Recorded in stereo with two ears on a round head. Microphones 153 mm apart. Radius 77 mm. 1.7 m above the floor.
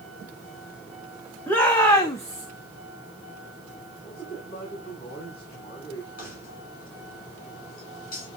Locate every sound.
1.5 s a shout: 10° left (ahead or behind), 2.0 m; by 2.5 s 20° left (ahead or behind), 1.2 m
4.0 s a man speaking: 35° left (ahead or behind), 6.5 m
6.2 s keys jangling: 50° left (ahead or behind), 7.5 m